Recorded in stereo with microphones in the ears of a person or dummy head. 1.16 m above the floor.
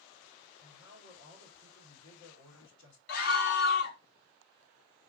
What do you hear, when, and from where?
0.6 s a man speaking: 85° left, 3 m
3.1 s a scream: 55° left (ahead or behind), 1.1 m